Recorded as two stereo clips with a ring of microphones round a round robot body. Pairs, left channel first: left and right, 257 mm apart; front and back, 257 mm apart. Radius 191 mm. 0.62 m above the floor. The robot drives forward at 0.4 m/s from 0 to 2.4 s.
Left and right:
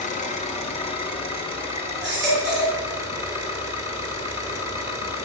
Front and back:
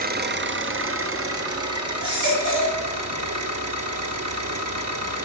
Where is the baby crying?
150° right, 3.5 m.